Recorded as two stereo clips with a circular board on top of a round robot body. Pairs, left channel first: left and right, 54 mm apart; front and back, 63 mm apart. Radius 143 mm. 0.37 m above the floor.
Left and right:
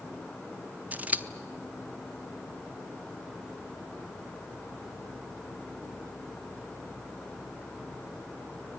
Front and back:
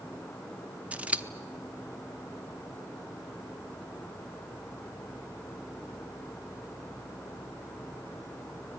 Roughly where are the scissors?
Behind right.